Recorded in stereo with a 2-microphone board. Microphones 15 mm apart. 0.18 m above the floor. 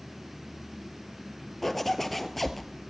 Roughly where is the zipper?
Centre.